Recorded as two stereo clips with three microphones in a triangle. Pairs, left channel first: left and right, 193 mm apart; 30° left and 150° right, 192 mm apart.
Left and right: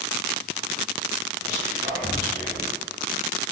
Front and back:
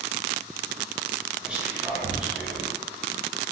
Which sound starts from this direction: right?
Whispering, at 1.4 s.